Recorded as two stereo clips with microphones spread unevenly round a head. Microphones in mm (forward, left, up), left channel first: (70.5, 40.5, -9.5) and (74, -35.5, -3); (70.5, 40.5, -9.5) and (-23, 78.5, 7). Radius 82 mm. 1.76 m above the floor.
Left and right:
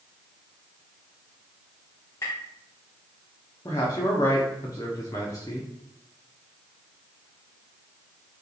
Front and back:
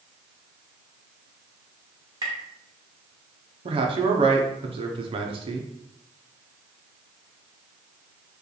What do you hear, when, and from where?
2.2 s tapping: 150° left, 1.0 m
3.6 s a man speaking: 150° left, 0.8 m